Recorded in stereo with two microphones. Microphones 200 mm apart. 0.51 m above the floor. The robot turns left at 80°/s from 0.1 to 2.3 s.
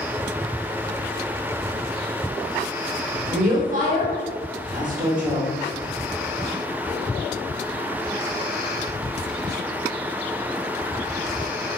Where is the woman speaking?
45° right (ahead or behind), 1.1 m.